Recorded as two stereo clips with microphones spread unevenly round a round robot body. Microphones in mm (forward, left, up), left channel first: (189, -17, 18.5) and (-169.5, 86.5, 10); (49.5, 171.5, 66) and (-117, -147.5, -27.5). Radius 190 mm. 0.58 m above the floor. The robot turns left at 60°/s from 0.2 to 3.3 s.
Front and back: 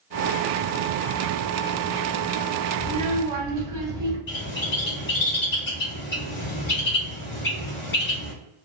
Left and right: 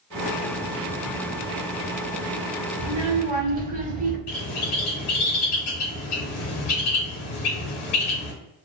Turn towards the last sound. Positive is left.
turn(degrees=45)